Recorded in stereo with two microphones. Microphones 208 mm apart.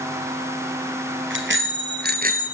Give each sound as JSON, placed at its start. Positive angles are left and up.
{"t": 1.3, "sound": "a bicycle bell", "side_deg": -70, "distance_m": 2.5}